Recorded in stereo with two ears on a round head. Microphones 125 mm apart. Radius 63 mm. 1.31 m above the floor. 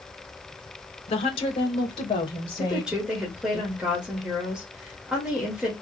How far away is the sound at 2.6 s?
About 2 m.